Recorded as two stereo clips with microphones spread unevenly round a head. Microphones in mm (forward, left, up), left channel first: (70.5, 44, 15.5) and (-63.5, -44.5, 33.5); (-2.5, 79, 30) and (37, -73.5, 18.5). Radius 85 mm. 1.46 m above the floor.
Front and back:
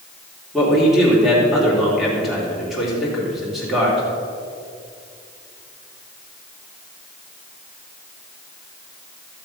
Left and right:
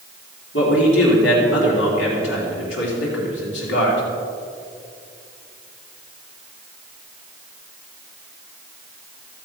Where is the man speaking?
125° left, 3.5 m.